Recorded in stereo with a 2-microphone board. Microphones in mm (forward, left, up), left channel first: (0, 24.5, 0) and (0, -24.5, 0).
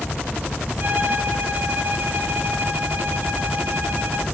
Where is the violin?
45° right (ahead or behind), 1.4 m.